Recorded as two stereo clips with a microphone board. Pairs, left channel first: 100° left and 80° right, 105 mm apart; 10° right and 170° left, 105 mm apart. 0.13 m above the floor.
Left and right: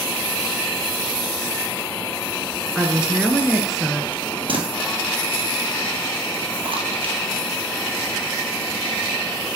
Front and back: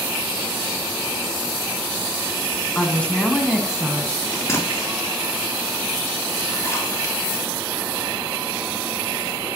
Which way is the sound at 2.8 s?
20° right.